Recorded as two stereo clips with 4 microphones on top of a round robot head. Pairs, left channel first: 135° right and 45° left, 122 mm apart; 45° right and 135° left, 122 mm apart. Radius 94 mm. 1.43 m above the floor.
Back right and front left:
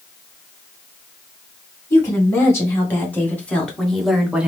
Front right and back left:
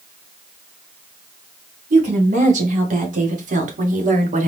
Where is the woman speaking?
155° left, 2 m; by 4.5 s 125° left, 0.9 m.